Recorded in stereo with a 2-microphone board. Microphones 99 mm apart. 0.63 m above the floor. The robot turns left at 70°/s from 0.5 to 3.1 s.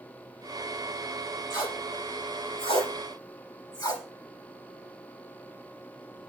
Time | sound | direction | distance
1.5 | tape being pulled | 30° left (ahead or behind) | 5 m